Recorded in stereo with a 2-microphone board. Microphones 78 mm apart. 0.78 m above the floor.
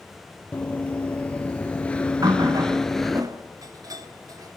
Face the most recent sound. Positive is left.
turn(degrees=-55)  # may be behind; listen again after turning